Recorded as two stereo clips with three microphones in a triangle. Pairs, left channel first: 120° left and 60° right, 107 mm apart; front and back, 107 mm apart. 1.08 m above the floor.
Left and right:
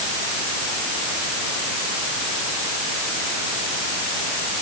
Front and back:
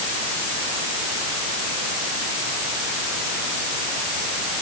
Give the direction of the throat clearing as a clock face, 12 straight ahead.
I don't hear throat clearing.